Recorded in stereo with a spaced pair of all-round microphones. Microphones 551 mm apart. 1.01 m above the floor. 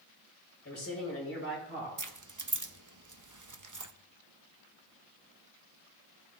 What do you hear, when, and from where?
0.7 s a man speaking: 25° left (ahead or behind), 6 m; by 1.9 s 20° left (ahead or behind), 6.5 m
2.0 s keys jangling: 35° right (ahead or behind), 0.6 m